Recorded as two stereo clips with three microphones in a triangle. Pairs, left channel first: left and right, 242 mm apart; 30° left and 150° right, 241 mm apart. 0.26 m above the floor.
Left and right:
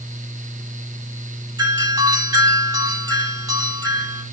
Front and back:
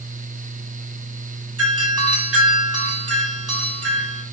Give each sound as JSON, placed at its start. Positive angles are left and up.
{"t": 1.6, "sound": "a doorbell", "azimuth_deg": -165, "distance_m": 8.5}